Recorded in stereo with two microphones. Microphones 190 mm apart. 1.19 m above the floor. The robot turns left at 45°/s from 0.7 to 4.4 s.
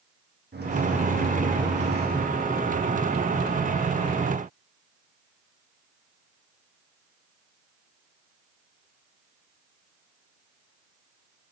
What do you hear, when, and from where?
0.5 s a microwave: 65° right, 1.2 m; by 2.3 s 135° right, 1.2 m